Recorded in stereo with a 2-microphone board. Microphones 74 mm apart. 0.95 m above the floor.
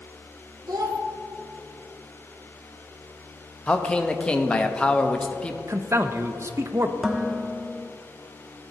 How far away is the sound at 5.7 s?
About 0.6 m.